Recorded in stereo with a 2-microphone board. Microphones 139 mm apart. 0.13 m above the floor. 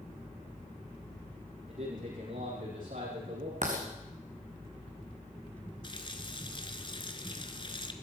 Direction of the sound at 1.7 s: 75° right (ahead or behind).